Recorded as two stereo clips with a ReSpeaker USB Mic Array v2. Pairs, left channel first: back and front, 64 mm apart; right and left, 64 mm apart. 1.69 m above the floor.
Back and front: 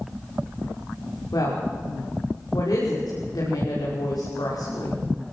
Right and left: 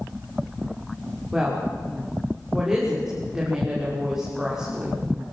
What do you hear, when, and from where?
1.3 s a woman speaking: 175° left, 6 m